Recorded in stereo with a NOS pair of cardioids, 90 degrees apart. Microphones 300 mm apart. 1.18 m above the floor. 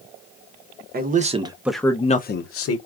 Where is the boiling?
No boiling in this recording.